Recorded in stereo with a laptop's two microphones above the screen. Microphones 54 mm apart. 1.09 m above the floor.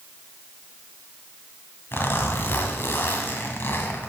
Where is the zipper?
45° left (ahead or behind), 1.5 m.